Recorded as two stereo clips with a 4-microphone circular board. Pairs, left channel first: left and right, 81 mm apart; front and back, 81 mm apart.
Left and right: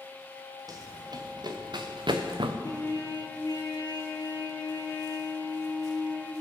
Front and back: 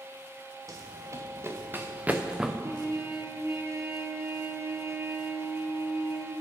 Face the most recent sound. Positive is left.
turn(degrees=130)